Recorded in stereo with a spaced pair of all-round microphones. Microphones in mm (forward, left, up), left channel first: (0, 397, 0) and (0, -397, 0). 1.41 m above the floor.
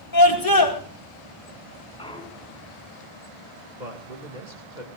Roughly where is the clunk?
Centre.